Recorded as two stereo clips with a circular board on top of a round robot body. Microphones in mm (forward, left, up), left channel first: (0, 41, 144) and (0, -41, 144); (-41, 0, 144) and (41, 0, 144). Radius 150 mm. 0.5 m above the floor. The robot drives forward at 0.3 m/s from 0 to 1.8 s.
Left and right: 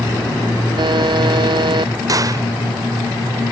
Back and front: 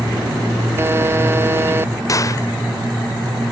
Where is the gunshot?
130° right.